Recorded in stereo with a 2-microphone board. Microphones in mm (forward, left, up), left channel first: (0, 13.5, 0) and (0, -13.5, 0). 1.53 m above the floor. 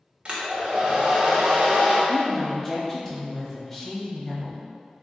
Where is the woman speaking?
Centre (ahead or behind), 0.9 m.